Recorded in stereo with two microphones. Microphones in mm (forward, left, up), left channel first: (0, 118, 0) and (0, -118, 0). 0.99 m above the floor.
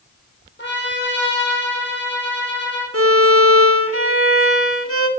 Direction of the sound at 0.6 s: 50° left (ahead or behind).